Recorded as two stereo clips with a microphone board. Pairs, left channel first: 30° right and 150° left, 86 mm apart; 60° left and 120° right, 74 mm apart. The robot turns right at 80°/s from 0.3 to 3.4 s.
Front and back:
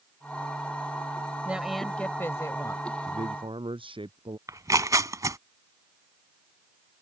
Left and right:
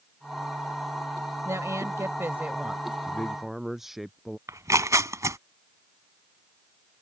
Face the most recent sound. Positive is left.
turn(degrees=-165)